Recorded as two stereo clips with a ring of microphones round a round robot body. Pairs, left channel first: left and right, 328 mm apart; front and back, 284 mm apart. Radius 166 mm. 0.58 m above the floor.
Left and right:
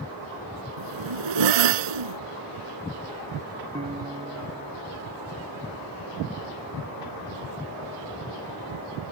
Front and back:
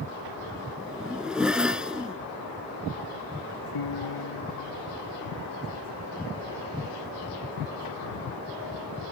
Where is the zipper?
90° right.